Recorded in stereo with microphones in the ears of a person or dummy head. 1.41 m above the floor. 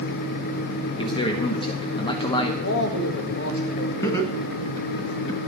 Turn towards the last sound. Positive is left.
turn(degrees=20)  # may be behind; listen again after turning